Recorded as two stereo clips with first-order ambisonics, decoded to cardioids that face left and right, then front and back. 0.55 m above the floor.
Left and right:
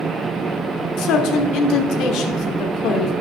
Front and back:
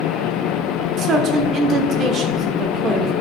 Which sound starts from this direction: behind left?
A man speaking, at 1.0 s.